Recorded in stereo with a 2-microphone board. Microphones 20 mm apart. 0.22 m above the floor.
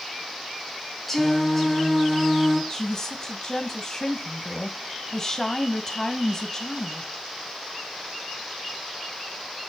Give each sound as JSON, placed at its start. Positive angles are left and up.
{"t": 1.1, "sound": "singing", "side_deg": 10, "distance_m": 3.0}
{"t": 2.7, "sound": "a woman speaking", "side_deg": 30, "distance_m": 1.0}